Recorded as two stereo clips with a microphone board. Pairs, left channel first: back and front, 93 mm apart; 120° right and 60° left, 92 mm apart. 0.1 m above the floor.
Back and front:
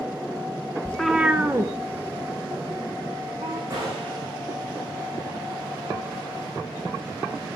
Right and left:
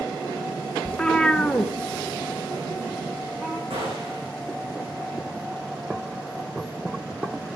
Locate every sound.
0.8 s a cat meowing: 165° right, 0.7 m; by 3.6 s 25° right, 2.5 m
3.7 s a gunshot: 55° left, 8.5 m